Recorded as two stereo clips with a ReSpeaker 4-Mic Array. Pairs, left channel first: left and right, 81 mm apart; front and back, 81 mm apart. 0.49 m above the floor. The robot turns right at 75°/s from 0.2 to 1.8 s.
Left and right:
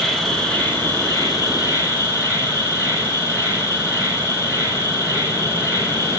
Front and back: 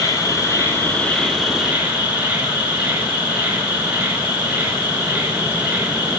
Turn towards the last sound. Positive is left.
turn(degrees=120)